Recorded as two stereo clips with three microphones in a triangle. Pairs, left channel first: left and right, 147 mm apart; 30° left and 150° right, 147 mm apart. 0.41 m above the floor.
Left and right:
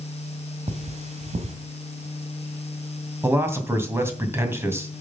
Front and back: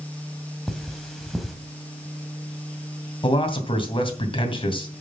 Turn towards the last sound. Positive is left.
turn(degrees=-20)